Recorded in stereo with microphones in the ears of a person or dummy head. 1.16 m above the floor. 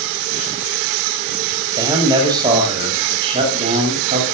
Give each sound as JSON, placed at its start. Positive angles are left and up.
{"t": 1.7, "sound": "a man speaking", "side_deg": -20, "distance_m": 8.0}